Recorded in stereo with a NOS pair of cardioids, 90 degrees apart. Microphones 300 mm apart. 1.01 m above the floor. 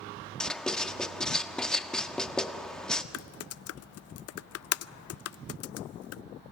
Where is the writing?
Straight ahead, 1.3 m.